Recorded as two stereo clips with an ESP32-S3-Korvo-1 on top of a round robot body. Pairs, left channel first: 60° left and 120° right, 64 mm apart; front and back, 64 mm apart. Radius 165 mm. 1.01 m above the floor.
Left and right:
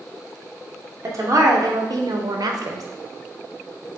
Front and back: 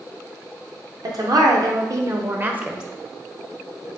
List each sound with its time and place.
1.0 s a woman speaking: 160° right, 1.1 m; by 2.8 s 100° right, 0.6 m